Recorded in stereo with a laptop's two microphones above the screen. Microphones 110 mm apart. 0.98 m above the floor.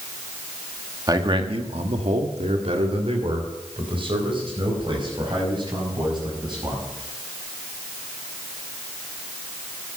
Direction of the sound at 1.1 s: 35° right (ahead or behind).